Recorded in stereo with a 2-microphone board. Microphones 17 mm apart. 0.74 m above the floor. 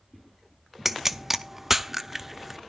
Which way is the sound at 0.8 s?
15° right (ahead or behind).